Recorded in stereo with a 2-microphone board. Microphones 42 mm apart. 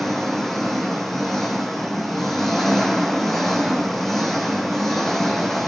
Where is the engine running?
5° left (ahead or behind), 1.9 m.